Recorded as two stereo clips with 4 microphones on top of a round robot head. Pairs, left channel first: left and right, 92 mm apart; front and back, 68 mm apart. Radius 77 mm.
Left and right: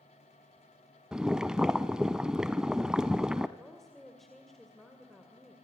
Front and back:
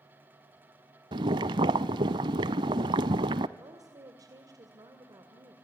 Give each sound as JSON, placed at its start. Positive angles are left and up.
{"t": 1.1, "sound": "boiling", "azimuth_deg": -175, "distance_m": 0.5}
{"t": 3.6, "sound": "a woman speaking", "azimuth_deg": 175, "distance_m": 2.5}